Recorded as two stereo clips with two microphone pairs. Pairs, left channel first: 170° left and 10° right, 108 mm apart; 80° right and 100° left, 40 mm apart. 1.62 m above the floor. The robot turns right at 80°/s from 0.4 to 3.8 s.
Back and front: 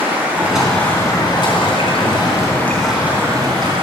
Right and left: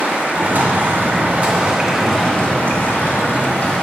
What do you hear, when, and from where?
0.0 s running water: 60° left, 3 m; by 3.9 s 25° right, 3 m